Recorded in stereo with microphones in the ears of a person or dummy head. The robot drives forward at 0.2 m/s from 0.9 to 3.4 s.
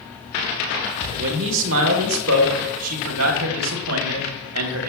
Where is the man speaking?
65° right (ahead or behind), 1.1 m; by 4.9 s 80° right, 1.1 m.